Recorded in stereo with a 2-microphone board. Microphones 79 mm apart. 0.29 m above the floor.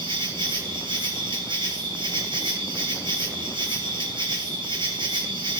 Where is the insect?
85° right, 2.5 m.